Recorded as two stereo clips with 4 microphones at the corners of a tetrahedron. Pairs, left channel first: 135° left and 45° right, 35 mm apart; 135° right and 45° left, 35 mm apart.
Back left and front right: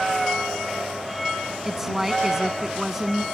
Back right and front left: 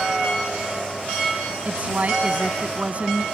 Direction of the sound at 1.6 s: 30° left.